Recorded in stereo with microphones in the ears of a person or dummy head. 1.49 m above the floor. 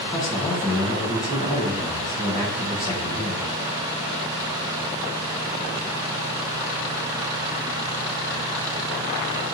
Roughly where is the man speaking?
Left.